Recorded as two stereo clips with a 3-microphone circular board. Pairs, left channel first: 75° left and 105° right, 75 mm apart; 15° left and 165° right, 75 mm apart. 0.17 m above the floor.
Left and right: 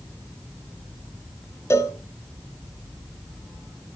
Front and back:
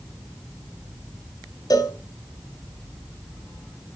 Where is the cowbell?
30° left, 1.1 m.